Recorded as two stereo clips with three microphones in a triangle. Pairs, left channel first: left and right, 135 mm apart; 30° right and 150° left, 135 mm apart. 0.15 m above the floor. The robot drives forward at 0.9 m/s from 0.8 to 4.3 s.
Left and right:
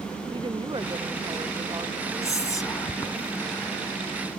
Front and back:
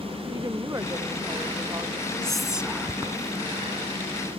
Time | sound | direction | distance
0.3 | a woman speaking | 145° right | ?
2.2 | whispering | 50° left | ?